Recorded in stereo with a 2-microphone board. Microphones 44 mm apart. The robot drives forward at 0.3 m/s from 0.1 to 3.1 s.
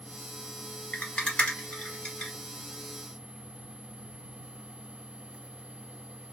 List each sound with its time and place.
0.9 s a rattle: 25° left (ahead or behind), 1.7 m